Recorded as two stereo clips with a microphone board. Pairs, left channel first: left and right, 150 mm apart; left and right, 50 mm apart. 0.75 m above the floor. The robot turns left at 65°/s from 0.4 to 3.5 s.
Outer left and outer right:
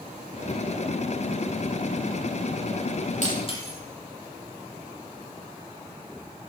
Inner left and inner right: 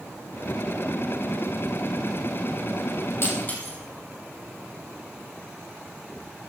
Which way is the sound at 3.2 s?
55° left (ahead or behind).